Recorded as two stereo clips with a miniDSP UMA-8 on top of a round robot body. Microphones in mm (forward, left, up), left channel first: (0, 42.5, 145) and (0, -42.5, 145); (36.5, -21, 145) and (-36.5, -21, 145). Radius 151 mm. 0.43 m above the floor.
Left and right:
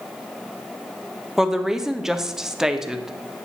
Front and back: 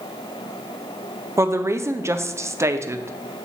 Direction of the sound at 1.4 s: 170° right.